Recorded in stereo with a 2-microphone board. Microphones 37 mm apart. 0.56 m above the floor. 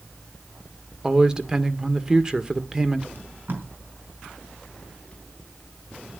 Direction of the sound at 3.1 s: 55° right (ahead or behind).